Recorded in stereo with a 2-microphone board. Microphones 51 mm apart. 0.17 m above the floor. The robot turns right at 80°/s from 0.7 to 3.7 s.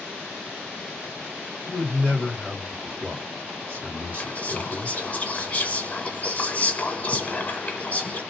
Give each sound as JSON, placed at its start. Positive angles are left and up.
{"t": 1.7, "sound": "a man speaking", "azimuth_deg": 105, "distance_m": 2.5}
{"t": 4.1, "sound": "whispering", "side_deg": 30, "distance_m": 1.3}